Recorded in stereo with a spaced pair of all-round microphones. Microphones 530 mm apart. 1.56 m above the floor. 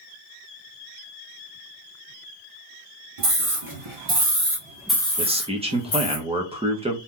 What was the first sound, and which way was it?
A scream, 85° right.